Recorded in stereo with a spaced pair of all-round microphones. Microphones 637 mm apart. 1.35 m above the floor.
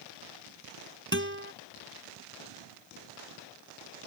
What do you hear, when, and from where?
1.1 s a guitar: 20° right (ahead or behind)